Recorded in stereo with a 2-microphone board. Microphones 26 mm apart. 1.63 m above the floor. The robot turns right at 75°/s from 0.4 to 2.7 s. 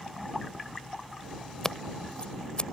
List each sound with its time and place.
1.6 s scissors: 20° left (ahead or behind); by 2.6 s 40° left (ahead or behind)